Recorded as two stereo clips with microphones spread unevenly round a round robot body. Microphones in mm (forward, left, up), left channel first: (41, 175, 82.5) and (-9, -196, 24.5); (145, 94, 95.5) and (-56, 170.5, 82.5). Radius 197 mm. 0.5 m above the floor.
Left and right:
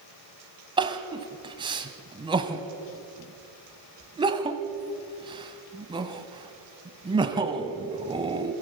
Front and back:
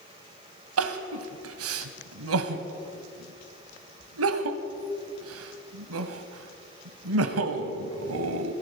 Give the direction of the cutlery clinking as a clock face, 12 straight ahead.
I don't hear cutlery clinking.